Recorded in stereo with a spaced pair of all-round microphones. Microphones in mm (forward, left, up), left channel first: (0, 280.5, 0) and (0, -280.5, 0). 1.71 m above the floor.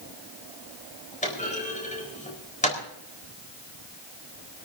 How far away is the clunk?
About 4.5 m.